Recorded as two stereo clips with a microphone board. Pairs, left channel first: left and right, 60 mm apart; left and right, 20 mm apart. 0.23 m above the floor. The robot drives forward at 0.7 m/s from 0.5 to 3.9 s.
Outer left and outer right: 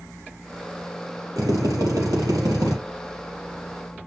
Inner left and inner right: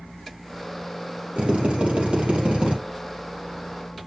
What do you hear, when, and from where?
1.4 s a drill: 70° right (ahead or behind), 4.5 m; by 2.8 s 80° right, 4.5 m